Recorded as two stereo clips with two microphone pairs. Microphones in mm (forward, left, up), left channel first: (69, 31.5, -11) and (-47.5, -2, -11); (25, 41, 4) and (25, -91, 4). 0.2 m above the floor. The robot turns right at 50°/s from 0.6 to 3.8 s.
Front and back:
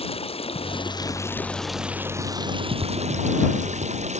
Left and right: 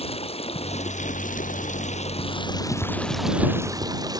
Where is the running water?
50° left; by 4.2 s 150° right.